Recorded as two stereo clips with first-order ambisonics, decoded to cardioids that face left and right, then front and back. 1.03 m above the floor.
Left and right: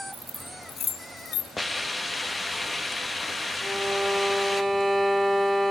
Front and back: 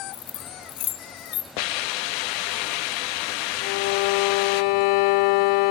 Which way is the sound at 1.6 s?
5° left.